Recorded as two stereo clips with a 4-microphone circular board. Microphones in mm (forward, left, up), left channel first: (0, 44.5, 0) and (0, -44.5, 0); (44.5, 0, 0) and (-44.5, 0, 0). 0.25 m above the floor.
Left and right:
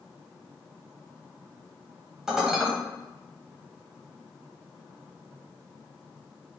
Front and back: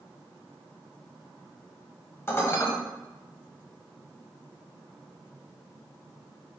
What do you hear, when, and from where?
2.3 s dishes clattering: 15° right, 0.9 m